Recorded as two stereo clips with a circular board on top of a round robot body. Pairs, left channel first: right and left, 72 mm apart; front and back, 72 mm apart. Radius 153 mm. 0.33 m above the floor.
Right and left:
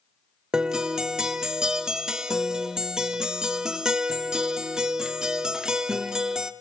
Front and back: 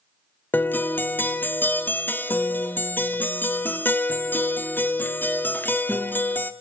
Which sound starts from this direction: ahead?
A guitar, at 0.5 s.